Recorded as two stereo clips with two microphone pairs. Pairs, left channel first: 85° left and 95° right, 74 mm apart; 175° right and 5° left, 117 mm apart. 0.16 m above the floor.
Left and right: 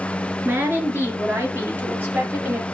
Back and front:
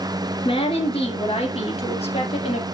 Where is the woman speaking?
150° right, 2.5 m.